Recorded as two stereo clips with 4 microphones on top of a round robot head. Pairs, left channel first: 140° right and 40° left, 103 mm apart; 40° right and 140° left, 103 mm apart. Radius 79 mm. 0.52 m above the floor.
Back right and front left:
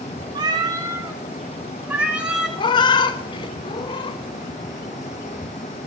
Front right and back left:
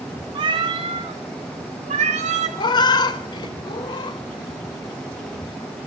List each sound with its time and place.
0.3 s a cat meowing: 90° left, 1.5 m; by 2.5 s 125° left, 2.0 m
2.6 s a cat meowing: 90° right, 0.8 m